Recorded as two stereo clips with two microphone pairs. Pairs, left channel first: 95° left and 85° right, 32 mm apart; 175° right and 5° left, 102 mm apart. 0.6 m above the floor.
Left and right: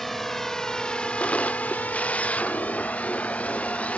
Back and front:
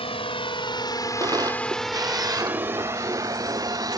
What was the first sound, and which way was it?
A drone, 175° right.